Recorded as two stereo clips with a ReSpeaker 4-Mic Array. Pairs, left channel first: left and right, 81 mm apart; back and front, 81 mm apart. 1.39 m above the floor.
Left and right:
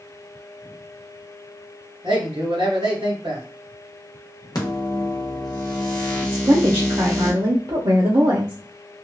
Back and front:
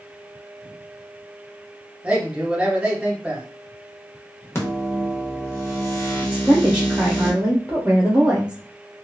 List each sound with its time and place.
2.0 s a man speaking: 80° right, 1.5 m
4.5 s a microwave: 125° left, 0.9 m
6.3 s a woman speaking: 75° right, 0.6 m